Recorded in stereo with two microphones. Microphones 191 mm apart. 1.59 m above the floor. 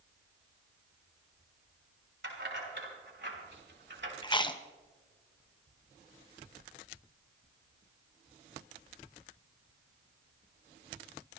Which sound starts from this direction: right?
Keys jangling, at 2.2 s.